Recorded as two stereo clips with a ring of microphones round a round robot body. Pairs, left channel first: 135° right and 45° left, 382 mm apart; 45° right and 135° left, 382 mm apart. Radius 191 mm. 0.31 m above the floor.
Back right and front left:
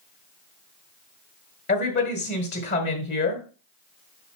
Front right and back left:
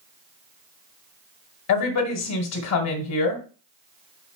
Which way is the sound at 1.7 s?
80° right.